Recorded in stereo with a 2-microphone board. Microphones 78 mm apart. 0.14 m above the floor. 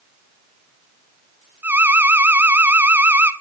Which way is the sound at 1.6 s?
25° right (ahead or behind).